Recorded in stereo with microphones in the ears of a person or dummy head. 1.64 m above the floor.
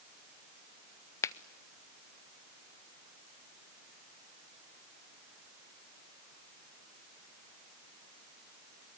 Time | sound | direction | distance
1.2 | a finger snap | 25° left (ahead or behind) | 0.6 m